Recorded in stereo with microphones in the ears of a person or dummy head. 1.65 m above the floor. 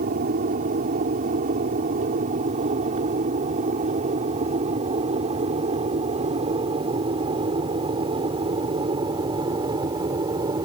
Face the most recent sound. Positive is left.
turn(degrees=-20)  # may be behind; listen again after turning